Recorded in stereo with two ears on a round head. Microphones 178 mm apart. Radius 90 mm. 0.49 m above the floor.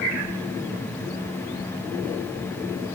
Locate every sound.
Only background noise.